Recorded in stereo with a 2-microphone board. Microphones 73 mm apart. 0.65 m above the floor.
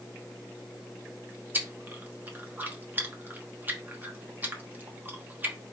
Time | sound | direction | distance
1.5 | chewing | 25° right (ahead or behind) | 0.9 m